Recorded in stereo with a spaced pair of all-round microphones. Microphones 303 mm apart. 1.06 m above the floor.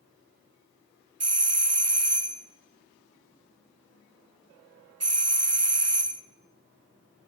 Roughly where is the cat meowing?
I don't hear a cat meowing.